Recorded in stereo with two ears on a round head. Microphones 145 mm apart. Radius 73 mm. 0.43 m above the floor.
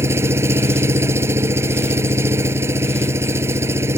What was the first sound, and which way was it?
An engine running, 15° right (ahead or behind).